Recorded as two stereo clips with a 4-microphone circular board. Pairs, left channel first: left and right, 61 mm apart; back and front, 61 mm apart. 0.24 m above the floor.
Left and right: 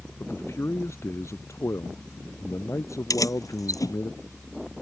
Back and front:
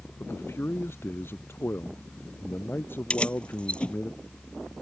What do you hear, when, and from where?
0.2 s a man speaking: 130° left; by 4.1 s 125° left
3.1 s keys jangling: 110° left